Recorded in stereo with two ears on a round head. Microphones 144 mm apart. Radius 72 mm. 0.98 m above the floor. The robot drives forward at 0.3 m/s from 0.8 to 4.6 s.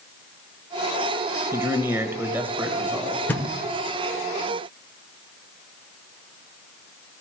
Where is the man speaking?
15° right (ahead or behind), 0.9 m; by 3.2 s 10° right (ahead or behind), 1.3 m.